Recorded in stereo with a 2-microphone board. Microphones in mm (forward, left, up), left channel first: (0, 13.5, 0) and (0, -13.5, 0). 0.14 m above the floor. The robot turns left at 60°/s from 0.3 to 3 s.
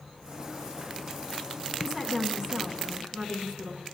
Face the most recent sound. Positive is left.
turn(degrees=-95)